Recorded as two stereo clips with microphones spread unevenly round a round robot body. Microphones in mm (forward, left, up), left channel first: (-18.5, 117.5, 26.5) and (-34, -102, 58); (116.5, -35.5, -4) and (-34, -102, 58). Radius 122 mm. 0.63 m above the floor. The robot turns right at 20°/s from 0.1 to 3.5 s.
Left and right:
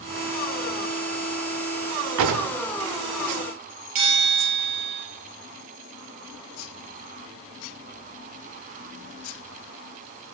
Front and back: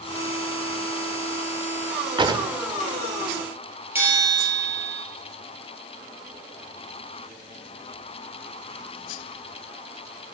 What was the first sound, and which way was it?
A drawer, 90° right.